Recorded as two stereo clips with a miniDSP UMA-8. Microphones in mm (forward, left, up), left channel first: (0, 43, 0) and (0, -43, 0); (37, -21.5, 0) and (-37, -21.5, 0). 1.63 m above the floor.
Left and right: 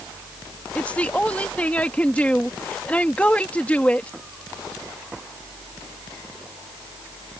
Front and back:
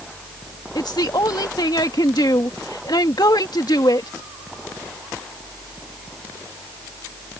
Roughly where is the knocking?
No knocking in this recording.